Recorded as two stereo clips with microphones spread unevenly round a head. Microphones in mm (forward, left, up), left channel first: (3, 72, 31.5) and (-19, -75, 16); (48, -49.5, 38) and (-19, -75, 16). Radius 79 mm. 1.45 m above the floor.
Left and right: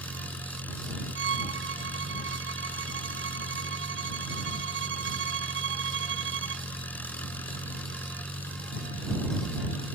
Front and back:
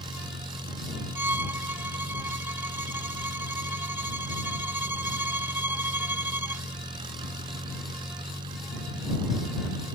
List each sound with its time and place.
0.0 s an engine running: 160° left
1.1 s a violin: 95° right